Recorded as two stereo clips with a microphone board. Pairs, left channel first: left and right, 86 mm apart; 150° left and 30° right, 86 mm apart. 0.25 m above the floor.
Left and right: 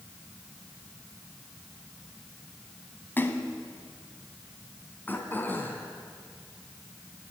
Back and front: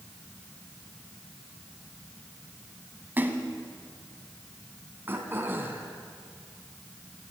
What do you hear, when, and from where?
3.2 s a splash: 30° left, 1.7 m
5.1 s throat clearing: 30° left, 2.5 m